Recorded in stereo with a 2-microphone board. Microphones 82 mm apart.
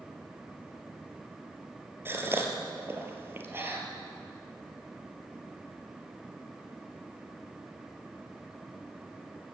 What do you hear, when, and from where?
2.0 s a gasp: 25° right (ahead or behind), 3 m